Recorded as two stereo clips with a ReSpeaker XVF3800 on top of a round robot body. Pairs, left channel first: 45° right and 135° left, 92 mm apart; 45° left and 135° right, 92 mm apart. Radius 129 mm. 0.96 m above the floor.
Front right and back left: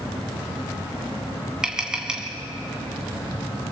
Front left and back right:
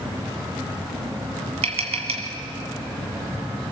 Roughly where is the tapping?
Behind right.